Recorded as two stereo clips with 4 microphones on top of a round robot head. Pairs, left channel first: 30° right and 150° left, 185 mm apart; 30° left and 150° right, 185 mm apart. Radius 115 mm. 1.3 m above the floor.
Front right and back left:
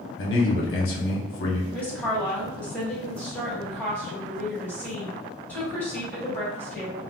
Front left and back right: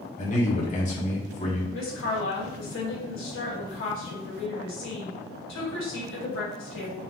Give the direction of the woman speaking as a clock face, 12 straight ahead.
10 o'clock.